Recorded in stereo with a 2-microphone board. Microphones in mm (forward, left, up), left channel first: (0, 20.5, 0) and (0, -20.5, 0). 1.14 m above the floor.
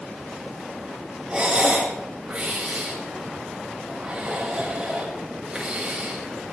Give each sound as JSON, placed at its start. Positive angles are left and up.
{"t": 1.3, "sound": "breathing", "side_deg": -20, "distance_m": 5.5}